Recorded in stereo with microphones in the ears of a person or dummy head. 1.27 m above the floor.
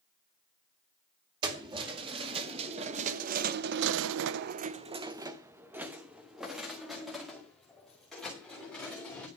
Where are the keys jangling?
25° right (ahead or behind), 2 m; by 9.3 s 5° left (ahead or behind), 3.5 m.